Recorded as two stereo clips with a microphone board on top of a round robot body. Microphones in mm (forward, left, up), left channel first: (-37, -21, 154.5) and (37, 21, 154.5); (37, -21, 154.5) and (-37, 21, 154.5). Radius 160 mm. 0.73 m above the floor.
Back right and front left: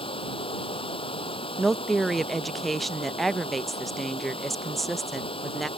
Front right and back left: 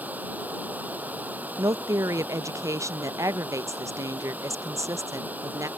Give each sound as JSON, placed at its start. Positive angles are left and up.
{"t": 0.0, "sound": "running water", "azimuth_deg": -140}
{"t": 1.6, "sound": "a woman speaking", "azimuth_deg": 120}